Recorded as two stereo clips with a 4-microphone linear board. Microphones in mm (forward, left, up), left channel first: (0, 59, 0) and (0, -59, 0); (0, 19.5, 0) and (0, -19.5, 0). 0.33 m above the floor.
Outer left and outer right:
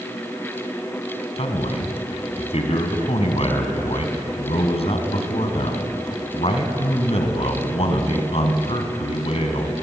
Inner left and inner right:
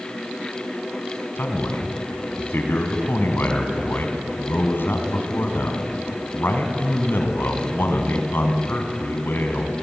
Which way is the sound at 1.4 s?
60° left (ahead or behind).